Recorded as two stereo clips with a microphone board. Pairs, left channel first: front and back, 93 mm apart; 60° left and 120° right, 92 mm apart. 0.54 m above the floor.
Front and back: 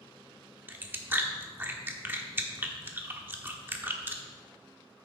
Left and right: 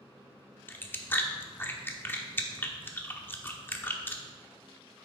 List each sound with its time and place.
0.7 s chewing: 120° left, 1.0 m